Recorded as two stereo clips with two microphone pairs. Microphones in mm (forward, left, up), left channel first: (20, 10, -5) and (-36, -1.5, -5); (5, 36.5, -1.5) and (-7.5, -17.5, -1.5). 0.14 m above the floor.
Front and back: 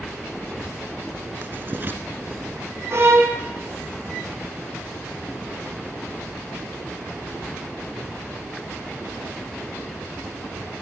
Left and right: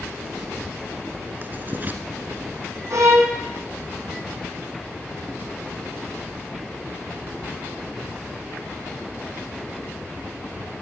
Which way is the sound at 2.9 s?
130° right.